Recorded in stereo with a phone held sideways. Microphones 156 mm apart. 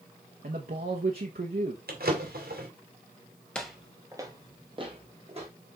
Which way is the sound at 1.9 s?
85° right.